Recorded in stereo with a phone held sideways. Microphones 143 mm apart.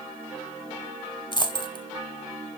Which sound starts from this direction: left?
A dropped coin, at 1.3 s.